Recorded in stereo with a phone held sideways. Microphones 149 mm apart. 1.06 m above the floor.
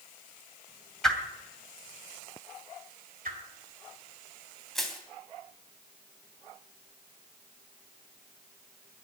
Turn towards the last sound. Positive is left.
turn(degrees=0)  # may be behind; listen again after turning